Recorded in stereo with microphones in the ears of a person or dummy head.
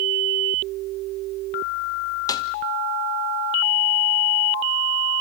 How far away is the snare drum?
About 0.9 m.